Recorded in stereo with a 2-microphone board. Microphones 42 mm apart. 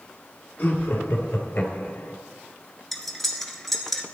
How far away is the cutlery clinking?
About 1.3 m.